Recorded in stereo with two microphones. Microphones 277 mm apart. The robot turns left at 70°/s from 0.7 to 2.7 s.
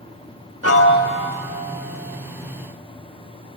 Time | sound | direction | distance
0.6 | a piano | 60° left | 0.6 m